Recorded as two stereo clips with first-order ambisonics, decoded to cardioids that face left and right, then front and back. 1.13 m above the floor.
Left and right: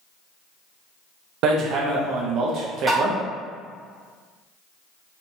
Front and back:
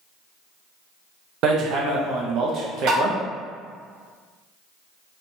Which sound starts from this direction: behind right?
Hammering, at 1.4 s.